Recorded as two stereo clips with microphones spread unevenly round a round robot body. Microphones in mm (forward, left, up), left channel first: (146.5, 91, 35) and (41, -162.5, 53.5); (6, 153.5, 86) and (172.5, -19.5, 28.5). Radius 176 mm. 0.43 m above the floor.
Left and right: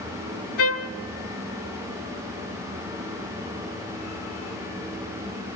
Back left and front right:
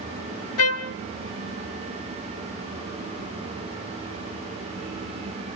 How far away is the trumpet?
About 0.6 m.